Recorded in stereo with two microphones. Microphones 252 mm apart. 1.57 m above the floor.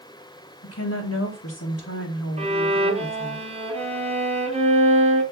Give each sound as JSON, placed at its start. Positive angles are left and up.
{"t": 0.6, "sound": "a woman speaking", "side_deg": 80, "distance_m": 2.0}
{"t": 2.4, "sound": "a violin", "side_deg": -25, "distance_m": 2.5}